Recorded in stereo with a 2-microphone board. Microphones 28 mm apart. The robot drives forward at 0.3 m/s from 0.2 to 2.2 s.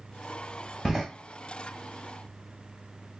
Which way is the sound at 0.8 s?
15° right (ahead or behind).